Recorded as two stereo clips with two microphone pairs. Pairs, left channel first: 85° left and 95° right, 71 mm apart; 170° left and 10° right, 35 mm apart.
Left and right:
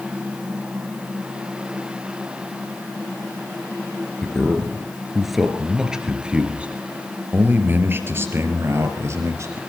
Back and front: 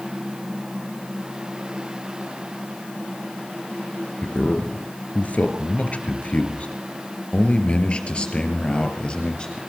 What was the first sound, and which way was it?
A man speaking, 160° left.